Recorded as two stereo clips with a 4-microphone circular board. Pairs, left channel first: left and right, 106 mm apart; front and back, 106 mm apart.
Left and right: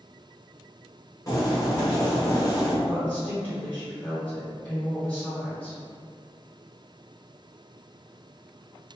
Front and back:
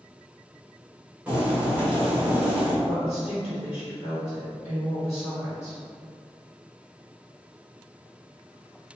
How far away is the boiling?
About 0.9 m.